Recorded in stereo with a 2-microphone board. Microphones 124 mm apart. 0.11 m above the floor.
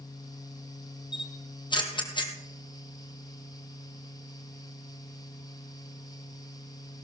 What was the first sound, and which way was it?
A camera shutter, 40° left (ahead or behind).